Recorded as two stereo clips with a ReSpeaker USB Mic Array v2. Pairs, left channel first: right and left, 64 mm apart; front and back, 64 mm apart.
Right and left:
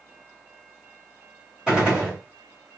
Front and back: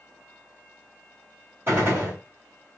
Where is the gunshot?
160° left, 1.7 m.